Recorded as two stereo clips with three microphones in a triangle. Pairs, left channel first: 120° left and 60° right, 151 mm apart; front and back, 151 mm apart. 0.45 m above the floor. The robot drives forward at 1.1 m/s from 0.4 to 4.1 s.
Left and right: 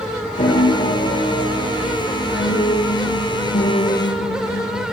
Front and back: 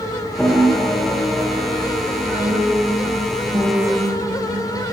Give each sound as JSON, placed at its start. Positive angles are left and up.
{"t": 0.4, "sound": "a piano", "azimuth_deg": 85, "distance_m": 8.0}